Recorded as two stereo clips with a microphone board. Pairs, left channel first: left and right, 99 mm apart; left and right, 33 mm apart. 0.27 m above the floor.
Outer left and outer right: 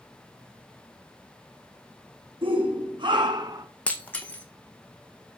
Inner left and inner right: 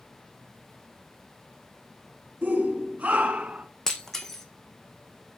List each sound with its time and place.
2.4 s a shout: 65° right (ahead or behind), 2 m; by 3.7 s 45° right (ahead or behind), 2.5 m
3.9 s breaking glass: 15° left (ahead or behind), 1.2 m